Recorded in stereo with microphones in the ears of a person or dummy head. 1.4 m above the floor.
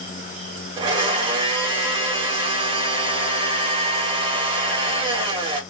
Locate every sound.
0.8 s a blender: 25° right (ahead or behind), 1.3 m